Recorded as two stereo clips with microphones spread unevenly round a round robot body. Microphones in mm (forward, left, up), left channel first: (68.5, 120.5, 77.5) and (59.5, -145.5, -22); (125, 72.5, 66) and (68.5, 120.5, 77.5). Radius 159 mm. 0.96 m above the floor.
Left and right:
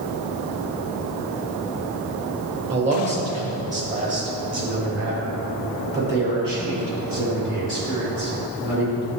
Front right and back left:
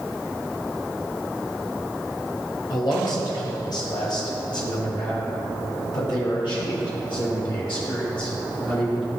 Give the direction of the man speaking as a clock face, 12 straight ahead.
1 o'clock.